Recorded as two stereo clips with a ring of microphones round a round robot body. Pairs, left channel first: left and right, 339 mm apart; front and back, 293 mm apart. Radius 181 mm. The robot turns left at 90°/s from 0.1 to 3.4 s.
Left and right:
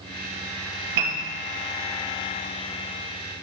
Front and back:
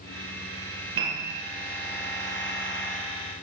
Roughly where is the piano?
Behind right.